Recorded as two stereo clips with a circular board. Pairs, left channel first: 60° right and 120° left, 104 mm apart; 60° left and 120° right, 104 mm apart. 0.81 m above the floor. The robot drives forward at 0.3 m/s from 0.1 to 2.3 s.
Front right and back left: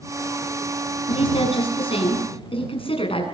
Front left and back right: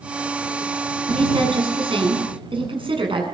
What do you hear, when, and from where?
1.1 s a woman speaking: 85° right, 8 m